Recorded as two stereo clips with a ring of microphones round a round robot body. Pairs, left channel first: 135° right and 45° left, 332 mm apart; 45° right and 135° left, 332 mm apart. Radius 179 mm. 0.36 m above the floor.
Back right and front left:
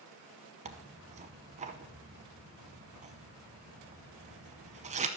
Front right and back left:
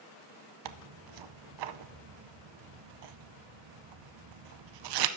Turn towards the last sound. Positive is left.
turn(degrees=115)